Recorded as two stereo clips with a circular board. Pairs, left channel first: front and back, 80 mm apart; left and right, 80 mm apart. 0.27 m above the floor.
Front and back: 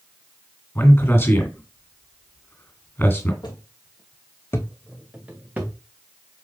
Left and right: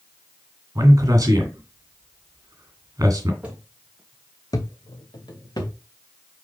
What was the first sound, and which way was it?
A man speaking, 55° right.